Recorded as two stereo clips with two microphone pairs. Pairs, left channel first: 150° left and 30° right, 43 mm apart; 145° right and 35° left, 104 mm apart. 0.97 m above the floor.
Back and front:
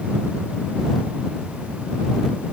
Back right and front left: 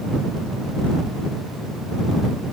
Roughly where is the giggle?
I don't hear a giggle.